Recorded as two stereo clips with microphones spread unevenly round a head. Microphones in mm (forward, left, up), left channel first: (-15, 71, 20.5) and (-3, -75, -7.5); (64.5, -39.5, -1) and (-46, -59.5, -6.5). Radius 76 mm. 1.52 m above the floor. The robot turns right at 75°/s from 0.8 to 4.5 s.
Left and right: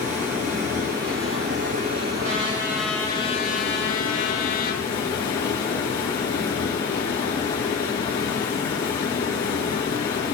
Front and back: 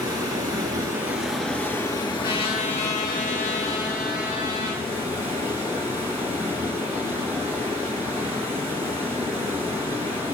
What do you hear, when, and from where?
0.0 s running water: 120° right, 2.5 m; by 10.3 s 160° left, 2.5 m
2.2 s a trumpet: 45° right, 1.5 m; by 4.8 s 125° left, 1.5 m